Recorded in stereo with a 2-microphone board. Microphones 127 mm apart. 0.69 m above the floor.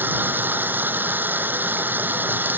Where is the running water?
15° right (ahead or behind).